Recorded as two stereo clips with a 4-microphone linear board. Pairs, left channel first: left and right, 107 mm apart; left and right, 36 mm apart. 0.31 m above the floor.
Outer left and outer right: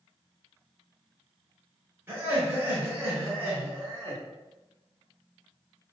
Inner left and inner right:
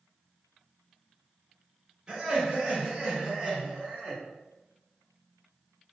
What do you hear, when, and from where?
2.1 s laughter: 20° right (ahead or behind), 1.1 m